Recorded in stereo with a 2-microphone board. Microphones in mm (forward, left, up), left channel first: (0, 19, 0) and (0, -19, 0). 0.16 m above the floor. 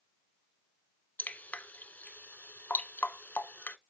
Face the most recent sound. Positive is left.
turn(degrees=50)  # may be behind; listen again after turning